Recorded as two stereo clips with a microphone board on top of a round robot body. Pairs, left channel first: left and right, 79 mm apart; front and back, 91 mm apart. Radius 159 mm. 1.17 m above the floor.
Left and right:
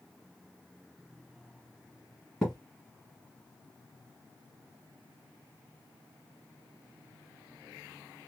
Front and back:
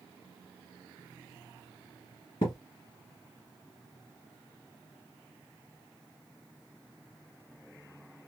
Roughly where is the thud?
Ahead.